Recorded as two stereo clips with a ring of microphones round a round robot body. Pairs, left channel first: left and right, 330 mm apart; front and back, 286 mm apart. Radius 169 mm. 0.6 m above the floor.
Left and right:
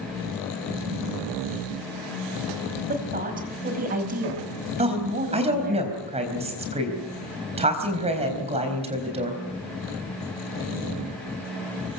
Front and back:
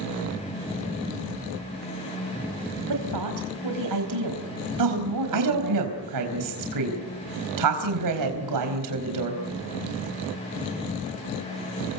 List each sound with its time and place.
2.9 s a woman speaking: 155° right, 4.5 m
4.8 s a woman speaking: 160° right, 4 m